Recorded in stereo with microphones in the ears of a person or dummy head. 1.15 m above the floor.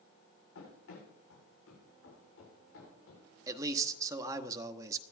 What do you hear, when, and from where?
0.6 s running footsteps: 80° left, 8.5 m; by 3.3 s 70° left (ahead or behind), 8 m
3.5 s a man speaking: 20° right (ahead or behind), 1.0 m